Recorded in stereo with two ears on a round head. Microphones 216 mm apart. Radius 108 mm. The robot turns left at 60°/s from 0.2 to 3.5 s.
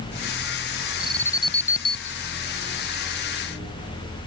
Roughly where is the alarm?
Behind.